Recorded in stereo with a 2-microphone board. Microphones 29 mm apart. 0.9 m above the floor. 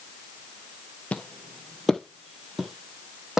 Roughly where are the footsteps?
Left.